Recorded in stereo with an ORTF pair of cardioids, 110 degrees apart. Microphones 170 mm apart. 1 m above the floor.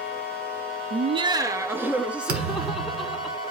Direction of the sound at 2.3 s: 65° right.